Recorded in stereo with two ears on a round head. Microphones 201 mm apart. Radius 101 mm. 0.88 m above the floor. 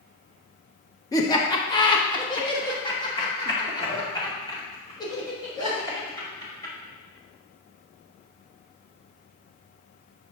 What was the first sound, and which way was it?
Laughter, 15° left (ahead or behind).